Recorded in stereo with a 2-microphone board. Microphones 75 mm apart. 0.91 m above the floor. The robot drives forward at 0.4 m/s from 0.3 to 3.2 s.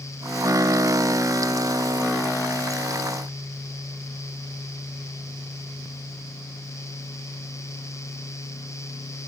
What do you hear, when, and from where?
Only background noise.